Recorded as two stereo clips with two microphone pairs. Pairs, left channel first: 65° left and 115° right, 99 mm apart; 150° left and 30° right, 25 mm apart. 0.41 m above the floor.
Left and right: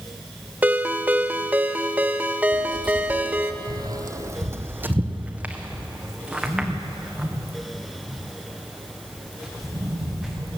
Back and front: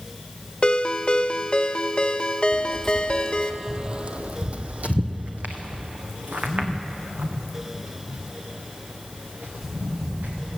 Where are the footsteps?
155° right, 0.8 m; by 10.6 s 25° right, 4 m.